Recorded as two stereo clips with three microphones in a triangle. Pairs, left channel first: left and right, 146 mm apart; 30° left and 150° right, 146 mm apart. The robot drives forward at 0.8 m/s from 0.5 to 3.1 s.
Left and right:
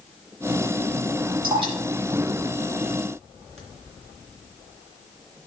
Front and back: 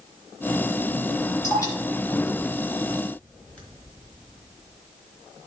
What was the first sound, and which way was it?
Dripping, 35° right.